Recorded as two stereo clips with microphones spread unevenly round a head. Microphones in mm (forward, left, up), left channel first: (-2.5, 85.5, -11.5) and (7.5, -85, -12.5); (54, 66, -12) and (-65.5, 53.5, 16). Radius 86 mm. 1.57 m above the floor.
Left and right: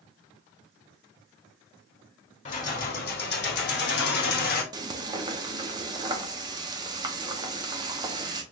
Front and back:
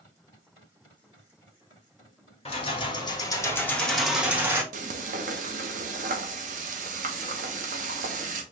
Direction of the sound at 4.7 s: 155° right.